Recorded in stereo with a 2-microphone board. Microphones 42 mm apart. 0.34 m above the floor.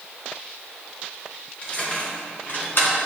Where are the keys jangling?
35° left (ahead or behind), 3 m; by 2.9 s 65° left (ahead or behind), 2 m.